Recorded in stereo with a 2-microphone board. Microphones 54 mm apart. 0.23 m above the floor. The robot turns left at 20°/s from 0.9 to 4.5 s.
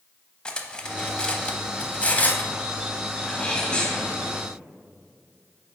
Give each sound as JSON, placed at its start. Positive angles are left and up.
{"t": 0.5, "sound": "cutlery clinking", "side_deg": 15, "distance_m": 0.6}
{"t": 3.2, "sound": "a sneeze", "side_deg": 15, "distance_m": 1.6}